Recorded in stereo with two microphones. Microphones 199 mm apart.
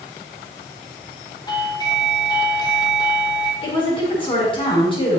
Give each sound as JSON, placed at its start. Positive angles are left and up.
{"t": 1.5, "sound": "a doorbell", "side_deg": 20, "distance_m": 2.0}
{"t": 3.6, "sound": "a woman speaking", "side_deg": 30, "distance_m": 6.5}